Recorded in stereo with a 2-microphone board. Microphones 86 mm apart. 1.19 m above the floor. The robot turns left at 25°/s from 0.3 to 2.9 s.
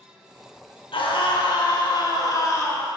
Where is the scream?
80° left, 1.4 m; by 2.9 s 30° left, 1.4 m.